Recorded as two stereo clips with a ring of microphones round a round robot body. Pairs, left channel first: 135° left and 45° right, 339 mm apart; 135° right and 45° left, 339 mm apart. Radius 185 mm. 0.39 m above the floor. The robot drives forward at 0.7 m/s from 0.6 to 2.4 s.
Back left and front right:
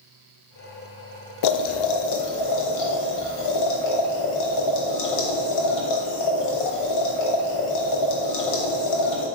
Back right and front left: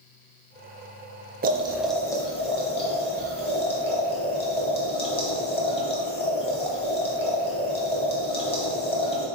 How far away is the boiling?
About 0.5 m.